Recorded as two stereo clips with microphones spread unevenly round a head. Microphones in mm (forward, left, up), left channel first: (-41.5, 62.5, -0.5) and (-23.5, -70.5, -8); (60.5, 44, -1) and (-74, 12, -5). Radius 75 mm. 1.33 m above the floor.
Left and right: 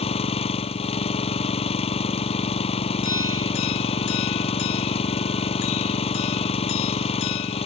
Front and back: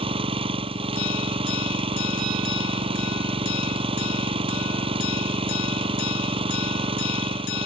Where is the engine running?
140° left.